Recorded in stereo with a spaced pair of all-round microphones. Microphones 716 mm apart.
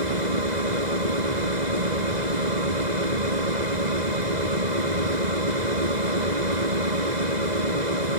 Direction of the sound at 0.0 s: 90° right.